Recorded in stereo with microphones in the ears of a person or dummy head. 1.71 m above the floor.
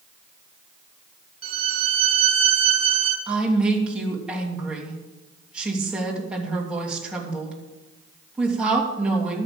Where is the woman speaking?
5° right (ahead or behind), 3 m.